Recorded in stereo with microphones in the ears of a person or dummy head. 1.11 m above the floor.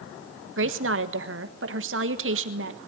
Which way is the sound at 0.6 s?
60° right (ahead or behind).